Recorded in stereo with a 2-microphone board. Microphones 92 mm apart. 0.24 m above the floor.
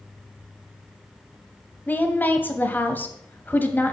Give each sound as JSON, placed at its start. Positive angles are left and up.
{"t": 1.9, "sound": "a woman speaking", "side_deg": 20, "distance_m": 1.1}